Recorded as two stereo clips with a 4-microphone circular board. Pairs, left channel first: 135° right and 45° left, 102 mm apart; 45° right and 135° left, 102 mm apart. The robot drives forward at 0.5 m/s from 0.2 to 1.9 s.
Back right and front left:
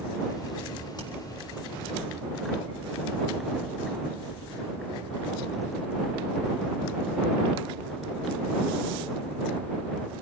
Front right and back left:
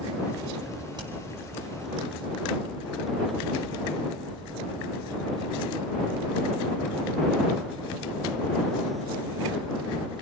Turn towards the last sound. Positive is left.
turn(degrees=180)